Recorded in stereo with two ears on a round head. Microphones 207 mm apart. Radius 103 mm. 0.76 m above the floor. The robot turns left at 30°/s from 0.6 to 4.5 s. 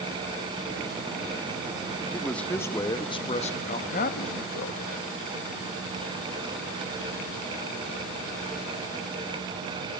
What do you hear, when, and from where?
2.1 s a man speaking: straight behind, 0.6 m; by 4.8 s 110° left, 0.6 m